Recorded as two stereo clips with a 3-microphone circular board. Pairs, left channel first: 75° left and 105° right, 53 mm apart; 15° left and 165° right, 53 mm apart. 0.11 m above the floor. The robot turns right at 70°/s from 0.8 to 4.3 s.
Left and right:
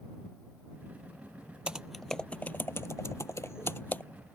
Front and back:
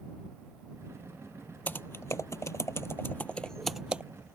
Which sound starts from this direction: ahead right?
Typing on a keyboard, at 1.7 s.